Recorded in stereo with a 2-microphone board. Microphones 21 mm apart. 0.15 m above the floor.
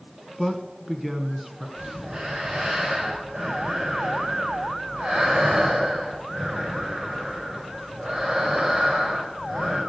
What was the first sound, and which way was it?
A man speaking, 15° right (ahead or behind).